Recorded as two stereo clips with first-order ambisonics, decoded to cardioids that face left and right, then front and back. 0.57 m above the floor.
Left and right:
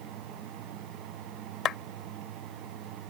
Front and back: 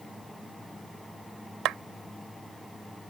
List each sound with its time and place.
1.6 s a clap: 140° left